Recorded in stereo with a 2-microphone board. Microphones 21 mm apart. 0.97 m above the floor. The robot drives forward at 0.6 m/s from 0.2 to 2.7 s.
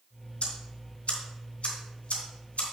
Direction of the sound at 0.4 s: 80° left.